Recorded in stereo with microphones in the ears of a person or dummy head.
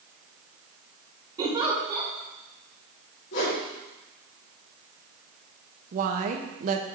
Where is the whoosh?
75° left (ahead or behind), 3.5 m.